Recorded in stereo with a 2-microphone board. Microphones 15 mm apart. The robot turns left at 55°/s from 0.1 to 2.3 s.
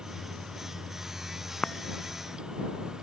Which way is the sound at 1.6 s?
85° left.